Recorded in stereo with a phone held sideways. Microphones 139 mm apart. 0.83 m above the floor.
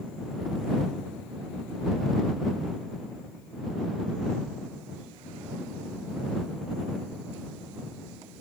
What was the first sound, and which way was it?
Only background noise.